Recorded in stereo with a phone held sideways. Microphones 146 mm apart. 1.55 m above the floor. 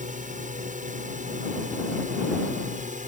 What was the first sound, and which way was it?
A drone, 60° right (ahead or behind).